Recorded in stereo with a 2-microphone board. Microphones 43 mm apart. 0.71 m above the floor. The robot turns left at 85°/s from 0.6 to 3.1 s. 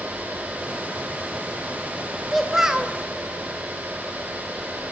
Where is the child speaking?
10° left, 0.5 m; by 2.9 s 45° right, 0.5 m.